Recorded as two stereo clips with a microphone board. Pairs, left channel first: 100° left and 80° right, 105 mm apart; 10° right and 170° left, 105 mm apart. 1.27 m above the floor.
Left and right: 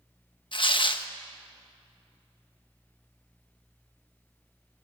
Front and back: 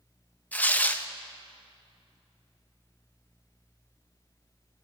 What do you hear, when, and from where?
0.5 s tearing paper: 60° left, 1.1 m